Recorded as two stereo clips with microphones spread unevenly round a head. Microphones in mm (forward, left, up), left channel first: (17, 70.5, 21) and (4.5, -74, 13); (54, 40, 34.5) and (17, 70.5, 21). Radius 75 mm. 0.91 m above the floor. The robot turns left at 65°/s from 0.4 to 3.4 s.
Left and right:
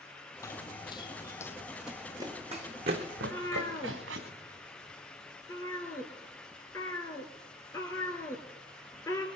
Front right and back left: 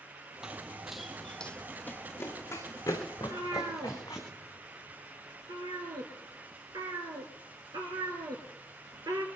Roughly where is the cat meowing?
Behind.